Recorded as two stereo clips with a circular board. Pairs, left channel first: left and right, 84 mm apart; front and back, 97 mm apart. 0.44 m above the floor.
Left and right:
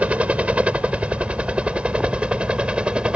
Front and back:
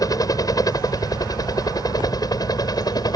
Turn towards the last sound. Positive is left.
turn(degrees=-20)